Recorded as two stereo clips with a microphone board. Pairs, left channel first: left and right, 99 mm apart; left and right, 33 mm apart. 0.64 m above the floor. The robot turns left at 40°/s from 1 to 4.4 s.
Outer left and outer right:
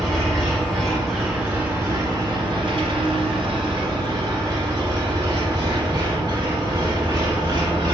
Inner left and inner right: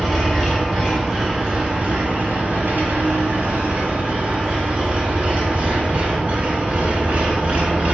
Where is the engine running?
5° left, 1.5 m; by 7.9 s 130° right, 1.5 m.